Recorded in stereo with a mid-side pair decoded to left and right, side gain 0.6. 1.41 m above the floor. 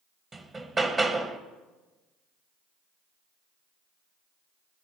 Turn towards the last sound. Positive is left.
turn(degrees=-25)